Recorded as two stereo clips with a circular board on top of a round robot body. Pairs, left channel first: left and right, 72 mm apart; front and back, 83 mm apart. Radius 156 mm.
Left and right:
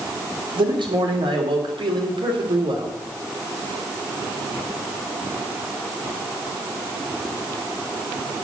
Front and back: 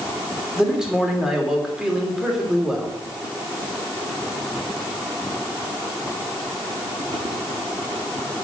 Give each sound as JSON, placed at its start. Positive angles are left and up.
{"t": 0.6, "sound": "a man speaking", "azimuth_deg": -95, "distance_m": 3.0}